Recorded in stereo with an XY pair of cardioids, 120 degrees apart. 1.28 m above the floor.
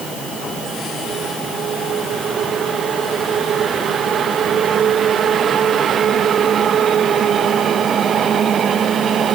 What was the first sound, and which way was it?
Only background noise.